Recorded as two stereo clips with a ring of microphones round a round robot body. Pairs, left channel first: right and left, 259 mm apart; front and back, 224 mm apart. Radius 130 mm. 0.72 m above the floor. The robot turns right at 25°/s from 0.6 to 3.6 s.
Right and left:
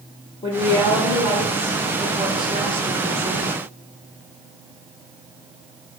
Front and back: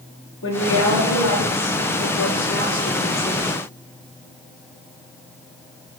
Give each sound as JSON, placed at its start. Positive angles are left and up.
{"t": 0.4, "sound": "a woman speaking", "azimuth_deg": -20, "distance_m": 1.9}